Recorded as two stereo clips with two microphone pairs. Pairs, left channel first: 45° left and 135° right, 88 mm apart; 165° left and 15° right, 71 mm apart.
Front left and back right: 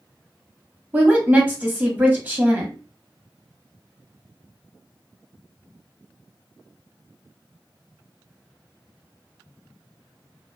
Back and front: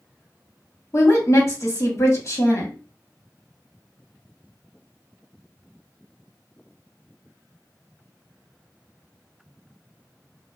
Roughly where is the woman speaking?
Behind.